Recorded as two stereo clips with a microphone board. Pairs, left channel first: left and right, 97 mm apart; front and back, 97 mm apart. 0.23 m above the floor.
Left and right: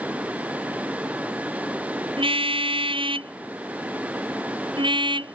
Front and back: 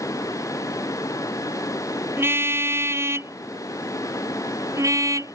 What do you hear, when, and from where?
2.2 s a car horn: 115° right; by 5.3 s 125° right